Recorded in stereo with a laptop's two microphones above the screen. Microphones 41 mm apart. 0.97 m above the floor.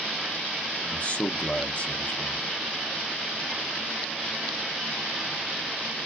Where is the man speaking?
35° left (ahead or behind), 0.7 m.